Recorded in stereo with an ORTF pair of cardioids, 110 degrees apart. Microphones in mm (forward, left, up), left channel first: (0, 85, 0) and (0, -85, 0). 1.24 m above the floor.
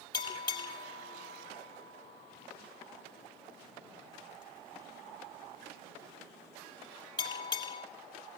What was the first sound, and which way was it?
A bell, 25° left.